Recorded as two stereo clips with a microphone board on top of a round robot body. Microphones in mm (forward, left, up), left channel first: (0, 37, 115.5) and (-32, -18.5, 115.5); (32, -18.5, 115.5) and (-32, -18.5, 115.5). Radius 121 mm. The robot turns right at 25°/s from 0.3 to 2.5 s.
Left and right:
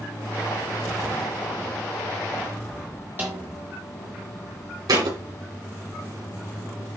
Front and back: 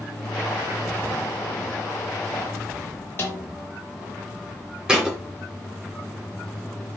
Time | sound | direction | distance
3.2 | a snare drum | 55° right | 0.8 m
4.9 | a thud | 105° right | 2.5 m